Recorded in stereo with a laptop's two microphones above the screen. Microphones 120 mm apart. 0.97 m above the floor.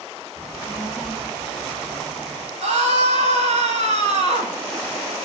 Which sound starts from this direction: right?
A scream, at 2.6 s.